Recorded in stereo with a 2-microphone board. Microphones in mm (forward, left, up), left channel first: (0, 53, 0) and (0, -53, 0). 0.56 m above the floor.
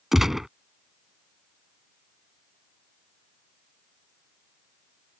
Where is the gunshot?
5° right (ahead or behind).